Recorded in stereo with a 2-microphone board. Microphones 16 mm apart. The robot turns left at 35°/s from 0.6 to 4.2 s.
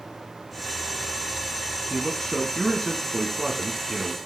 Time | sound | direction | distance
1.9 | a man speaking | 45° left | 3.5 m